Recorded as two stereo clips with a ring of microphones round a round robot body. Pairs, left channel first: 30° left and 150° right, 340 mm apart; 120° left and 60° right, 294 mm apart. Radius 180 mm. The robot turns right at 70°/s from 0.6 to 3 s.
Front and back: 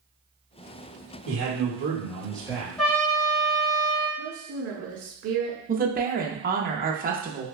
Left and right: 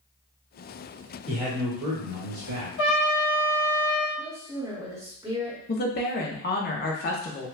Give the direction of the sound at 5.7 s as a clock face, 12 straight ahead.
7 o'clock.